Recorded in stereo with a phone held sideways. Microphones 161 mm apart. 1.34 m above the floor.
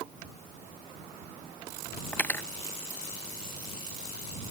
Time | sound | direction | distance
2.1 | cutlery clinking | 10° left (ahead or behind) | ?